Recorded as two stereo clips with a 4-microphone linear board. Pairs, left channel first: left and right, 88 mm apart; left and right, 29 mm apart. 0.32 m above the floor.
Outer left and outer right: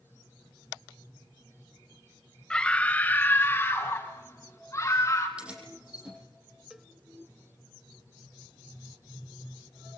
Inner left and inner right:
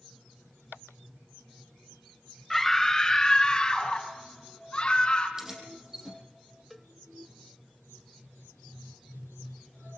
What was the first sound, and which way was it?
A scream, 10° left (ahead or behind).